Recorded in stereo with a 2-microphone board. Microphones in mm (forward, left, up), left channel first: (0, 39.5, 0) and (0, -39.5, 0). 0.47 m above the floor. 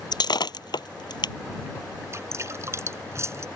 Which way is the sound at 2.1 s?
35° right (ahead or behind).